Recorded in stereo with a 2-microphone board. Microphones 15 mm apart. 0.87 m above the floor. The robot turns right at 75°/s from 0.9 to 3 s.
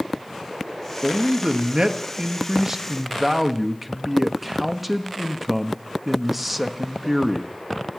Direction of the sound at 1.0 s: 160° right.